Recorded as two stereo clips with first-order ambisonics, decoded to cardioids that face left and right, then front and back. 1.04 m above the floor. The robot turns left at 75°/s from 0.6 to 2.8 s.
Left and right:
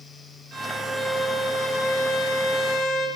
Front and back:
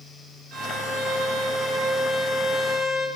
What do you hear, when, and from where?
0.5 s a violin: 140° right, 1.4 m; by 3.1 s 55° left, 1.4 m